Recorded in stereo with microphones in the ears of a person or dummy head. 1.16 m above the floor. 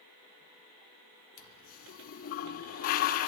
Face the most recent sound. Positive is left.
turn(degrees=55)  # may be behind; listen again after turning